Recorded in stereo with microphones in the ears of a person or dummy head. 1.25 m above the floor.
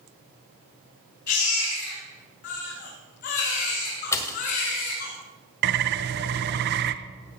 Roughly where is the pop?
Centre.